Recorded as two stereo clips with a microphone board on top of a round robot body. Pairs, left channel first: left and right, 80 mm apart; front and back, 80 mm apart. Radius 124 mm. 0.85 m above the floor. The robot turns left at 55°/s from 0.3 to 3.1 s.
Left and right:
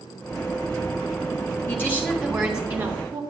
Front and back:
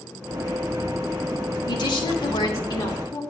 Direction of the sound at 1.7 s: 35° left.